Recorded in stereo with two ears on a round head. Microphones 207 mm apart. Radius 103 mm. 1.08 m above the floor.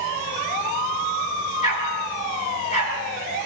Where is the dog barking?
30° left (ahead or behind), 5.5 m.